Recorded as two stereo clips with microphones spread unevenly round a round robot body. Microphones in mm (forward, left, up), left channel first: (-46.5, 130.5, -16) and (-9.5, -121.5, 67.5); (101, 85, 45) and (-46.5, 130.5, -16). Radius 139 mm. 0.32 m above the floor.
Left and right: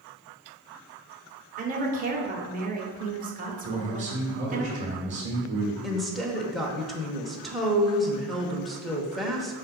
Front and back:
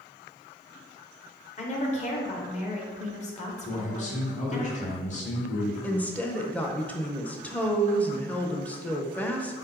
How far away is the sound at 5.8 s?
About 0.8 m.